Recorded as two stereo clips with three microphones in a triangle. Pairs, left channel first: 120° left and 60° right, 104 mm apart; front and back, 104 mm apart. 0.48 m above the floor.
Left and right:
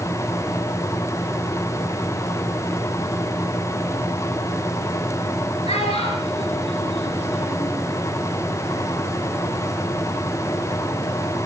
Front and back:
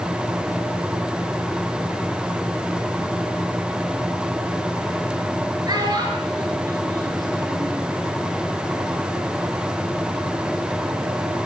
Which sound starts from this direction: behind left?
A child speaking, at 5.7 s.